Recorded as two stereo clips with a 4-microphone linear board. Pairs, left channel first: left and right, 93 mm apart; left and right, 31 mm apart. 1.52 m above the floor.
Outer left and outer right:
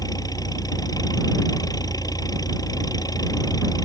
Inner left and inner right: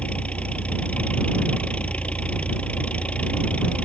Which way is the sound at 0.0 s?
45° left (ahead or behind).